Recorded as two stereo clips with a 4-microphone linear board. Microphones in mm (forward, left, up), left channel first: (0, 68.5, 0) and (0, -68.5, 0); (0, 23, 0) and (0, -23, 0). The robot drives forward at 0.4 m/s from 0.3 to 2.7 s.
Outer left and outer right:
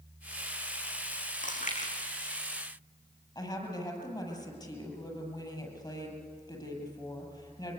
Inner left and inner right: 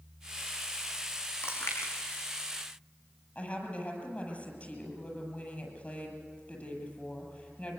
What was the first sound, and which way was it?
Chewing, 65° left (ahead or behind).